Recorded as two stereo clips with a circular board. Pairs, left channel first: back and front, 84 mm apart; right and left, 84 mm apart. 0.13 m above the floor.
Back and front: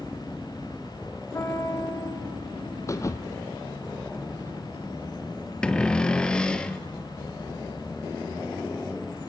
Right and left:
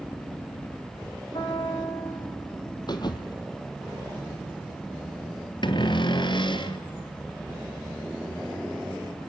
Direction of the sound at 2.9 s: 125° right.